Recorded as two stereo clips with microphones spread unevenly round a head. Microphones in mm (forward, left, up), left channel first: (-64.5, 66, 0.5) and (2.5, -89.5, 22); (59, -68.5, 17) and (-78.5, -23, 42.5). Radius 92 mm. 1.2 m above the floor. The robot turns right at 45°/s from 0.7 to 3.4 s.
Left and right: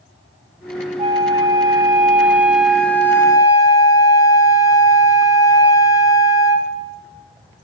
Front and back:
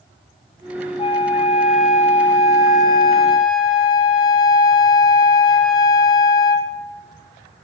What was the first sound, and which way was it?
A flute, 65° right.